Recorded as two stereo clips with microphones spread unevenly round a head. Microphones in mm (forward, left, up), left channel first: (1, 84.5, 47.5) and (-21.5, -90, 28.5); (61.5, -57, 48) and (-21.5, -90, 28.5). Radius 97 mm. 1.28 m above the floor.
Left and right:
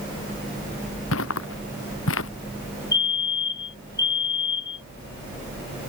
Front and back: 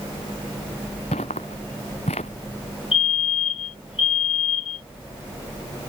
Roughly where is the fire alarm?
Ahead.